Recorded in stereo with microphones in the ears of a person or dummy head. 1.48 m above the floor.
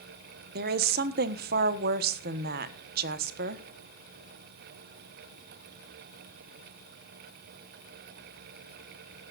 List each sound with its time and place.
0.6 s a woman speaking: 60° right (ahead or behind), 1.4 m